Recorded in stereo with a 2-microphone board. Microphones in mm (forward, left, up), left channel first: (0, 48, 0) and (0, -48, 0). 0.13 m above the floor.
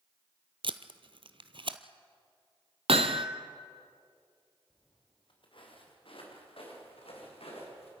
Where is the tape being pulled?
60° right (ahead or behind), 0.8 m.